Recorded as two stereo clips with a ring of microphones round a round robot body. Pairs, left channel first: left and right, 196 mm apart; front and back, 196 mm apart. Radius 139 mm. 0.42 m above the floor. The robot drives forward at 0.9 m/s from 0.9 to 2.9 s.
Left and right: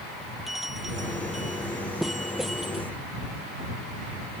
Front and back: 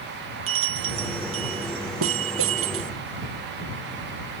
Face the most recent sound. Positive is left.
turn(degrees=180)